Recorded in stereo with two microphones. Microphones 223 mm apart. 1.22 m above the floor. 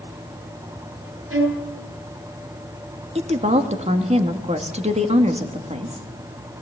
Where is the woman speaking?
30° right (ahead or behind), 2.5 m.